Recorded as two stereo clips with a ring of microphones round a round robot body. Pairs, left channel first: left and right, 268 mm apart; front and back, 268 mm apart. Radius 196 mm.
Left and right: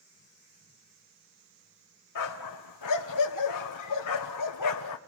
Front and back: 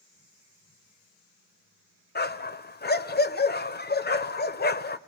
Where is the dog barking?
55° left, 1.3 m.